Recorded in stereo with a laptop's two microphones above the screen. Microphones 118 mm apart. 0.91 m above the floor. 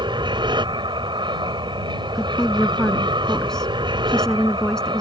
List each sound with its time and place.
0.0 s an aircraft: 40° right (ahead or behind)
2.1 s a woman speaking: 5° left (ahead or behind)